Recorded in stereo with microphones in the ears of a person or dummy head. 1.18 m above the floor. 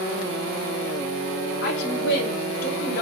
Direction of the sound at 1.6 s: 65° left (ahead or behind).